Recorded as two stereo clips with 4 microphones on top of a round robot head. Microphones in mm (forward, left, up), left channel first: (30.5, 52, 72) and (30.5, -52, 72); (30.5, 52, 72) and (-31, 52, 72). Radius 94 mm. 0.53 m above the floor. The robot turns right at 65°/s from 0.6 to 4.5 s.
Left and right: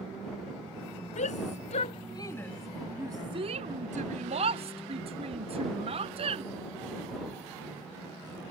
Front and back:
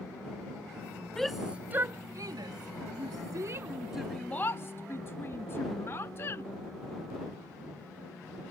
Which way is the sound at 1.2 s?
80° left.